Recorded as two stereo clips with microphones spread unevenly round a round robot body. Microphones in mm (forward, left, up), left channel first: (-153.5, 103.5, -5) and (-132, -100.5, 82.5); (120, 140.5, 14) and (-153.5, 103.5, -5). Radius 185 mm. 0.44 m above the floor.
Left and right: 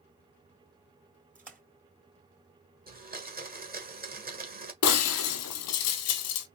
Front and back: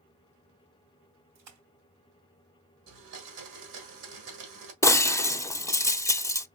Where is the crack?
I don't hear a crack.